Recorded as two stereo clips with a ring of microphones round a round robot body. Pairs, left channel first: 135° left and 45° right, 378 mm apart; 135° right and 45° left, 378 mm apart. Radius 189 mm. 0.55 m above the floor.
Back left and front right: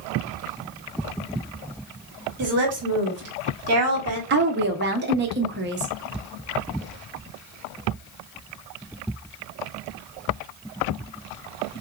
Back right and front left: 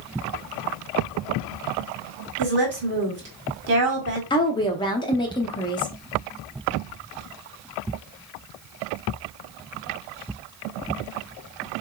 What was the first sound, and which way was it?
A woman speaking, 5° right.